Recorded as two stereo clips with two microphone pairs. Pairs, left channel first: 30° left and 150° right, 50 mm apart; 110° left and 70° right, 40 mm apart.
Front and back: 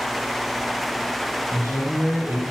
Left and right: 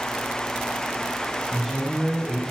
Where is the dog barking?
I don't hear a dog barking.